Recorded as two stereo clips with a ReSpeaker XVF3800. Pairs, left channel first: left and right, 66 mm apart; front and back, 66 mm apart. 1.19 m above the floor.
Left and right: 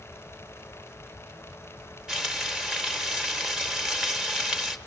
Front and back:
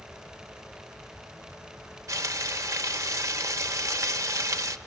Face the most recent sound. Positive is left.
turn(degrees=-165)